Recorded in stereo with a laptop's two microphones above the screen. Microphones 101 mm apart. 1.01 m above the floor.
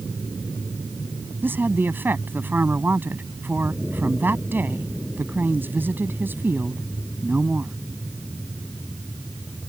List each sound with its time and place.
1.4 s a woman speaking: 20° right (ahead or behind)